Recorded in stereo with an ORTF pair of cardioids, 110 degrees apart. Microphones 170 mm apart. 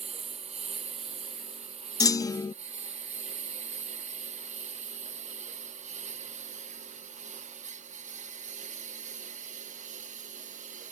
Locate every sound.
0.0 s a lawn mower: 35° right; by 10.9 s 45° right
2.0 s a clunk: 20° left